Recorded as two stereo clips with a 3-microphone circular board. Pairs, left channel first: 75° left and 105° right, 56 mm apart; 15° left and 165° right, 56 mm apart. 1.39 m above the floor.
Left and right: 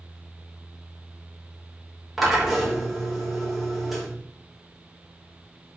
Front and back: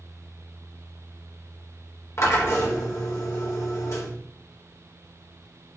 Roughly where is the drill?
Ahead.